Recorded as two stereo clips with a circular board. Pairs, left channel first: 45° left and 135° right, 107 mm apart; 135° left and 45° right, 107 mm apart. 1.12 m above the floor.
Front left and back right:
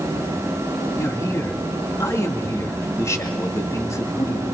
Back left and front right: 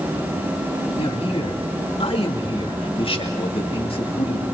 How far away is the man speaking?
About 2.5 m.